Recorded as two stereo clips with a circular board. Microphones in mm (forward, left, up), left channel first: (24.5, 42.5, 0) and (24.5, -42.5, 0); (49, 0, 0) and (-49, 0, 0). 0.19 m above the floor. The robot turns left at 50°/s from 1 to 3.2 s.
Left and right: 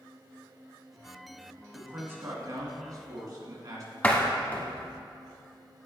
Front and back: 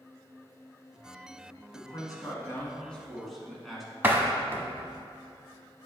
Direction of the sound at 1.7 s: 20° right.